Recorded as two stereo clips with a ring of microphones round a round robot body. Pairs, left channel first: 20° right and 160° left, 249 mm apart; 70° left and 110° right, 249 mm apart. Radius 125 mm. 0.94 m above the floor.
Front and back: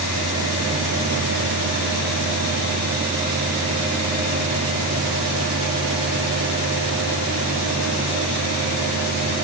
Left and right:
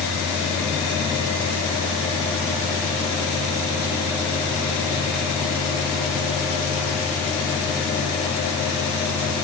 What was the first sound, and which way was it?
Only background noise.